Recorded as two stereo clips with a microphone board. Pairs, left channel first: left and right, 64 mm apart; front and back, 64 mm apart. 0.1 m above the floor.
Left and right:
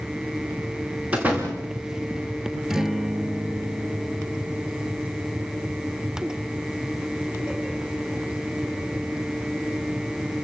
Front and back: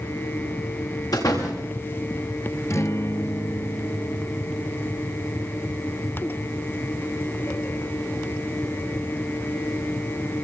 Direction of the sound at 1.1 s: 20° right.